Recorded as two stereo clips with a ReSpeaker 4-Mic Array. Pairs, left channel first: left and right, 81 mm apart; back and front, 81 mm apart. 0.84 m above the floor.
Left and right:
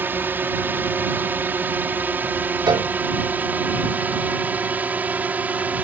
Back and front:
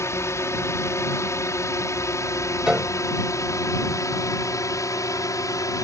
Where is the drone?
145° right; by 5.8 s 155° right.